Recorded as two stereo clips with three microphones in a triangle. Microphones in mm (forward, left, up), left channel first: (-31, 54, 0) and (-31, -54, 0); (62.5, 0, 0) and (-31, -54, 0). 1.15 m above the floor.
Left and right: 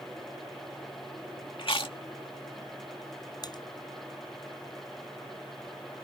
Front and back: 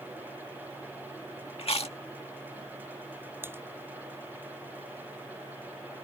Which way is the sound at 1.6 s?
55° left.